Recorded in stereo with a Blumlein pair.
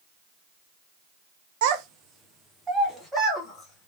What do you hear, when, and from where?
1.6 s a child speaking: 50° right, 0.6 m; by 3.9 s 5° left, 2.0 m